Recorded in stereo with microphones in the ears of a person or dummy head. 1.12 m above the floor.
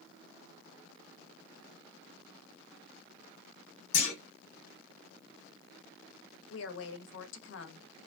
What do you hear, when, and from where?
3.9 s a clunk: 60° left (ahead or behind), 2.5 m
6.5 s a woman speaking: 70° left (ahead or behind), 0.7 m